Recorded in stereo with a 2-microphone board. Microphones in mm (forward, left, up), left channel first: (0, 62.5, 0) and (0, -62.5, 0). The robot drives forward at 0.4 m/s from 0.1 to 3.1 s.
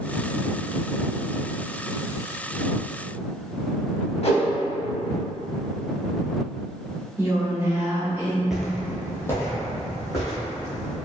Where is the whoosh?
55° left (ahead or behind), 0.5 m.